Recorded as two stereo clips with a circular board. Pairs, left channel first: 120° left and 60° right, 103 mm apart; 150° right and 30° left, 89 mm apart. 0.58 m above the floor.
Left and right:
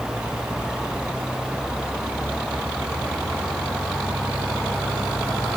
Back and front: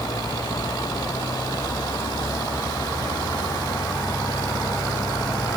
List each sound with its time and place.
Only background noise.